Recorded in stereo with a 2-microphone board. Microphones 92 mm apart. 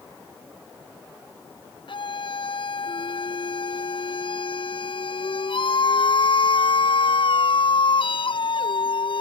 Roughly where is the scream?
Left.